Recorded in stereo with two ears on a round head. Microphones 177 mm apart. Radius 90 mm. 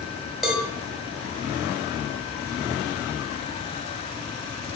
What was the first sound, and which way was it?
A cowbell, 5° right (ahead or behind).